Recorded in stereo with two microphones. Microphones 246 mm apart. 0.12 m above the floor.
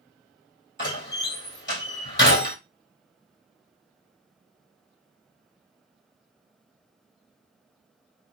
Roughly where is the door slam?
Left.